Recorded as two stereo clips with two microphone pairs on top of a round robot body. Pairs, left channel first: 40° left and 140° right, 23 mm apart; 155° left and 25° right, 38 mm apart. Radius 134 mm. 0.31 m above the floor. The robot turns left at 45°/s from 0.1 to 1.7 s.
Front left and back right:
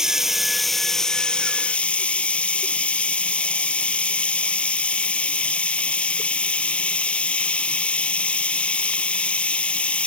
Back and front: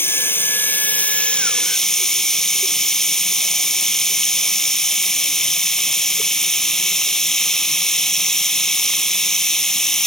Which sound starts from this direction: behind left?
Running water, at 0.0 s.